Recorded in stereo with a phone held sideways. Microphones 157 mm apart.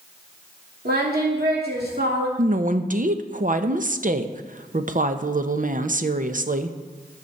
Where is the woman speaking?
55° right (ahead or behind), 0.8 m.